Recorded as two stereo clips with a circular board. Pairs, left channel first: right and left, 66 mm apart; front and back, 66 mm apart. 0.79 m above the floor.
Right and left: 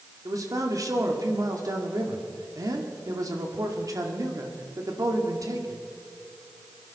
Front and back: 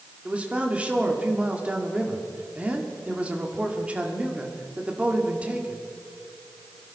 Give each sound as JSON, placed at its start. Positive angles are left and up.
{"t": 0.2, "sound": "a man speaking", "azimuth_deg": 110, "distance_m": 2.0}